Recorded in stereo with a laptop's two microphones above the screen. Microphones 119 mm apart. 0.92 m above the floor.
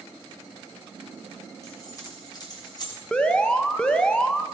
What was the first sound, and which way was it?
Keys jangling, 30° left (ahead or behind).